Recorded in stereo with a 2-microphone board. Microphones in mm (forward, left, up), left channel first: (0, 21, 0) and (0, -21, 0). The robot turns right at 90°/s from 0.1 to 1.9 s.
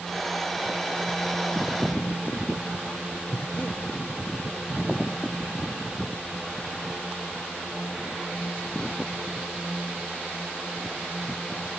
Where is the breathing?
45° left (ahead or behind).